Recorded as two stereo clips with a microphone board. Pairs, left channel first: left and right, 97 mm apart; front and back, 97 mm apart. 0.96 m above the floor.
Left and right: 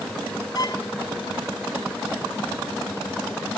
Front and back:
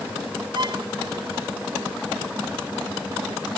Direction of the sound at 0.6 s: 140° left.